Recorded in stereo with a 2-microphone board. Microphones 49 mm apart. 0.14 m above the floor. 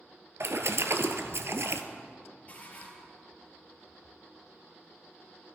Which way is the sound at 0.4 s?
65° right (ahead or behind).